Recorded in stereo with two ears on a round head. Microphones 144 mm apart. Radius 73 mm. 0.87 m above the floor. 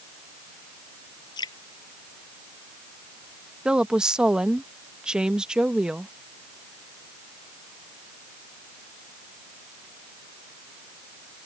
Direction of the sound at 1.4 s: 25° left (ahead or behind).